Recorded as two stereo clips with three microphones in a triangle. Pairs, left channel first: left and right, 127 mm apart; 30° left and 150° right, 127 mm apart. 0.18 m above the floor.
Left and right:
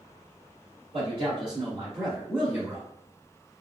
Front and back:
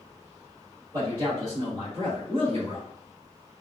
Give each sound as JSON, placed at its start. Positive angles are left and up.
{"t": 0.9, "sound": "a man speaking", "azimuth_deg": -95, "distance_m": 1.5}